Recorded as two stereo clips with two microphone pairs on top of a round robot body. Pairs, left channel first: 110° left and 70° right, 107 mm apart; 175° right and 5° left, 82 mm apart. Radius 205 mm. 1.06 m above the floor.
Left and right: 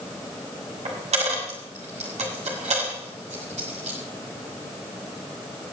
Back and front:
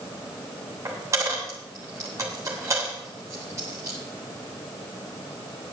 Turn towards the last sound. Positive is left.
turn(degrees=-50)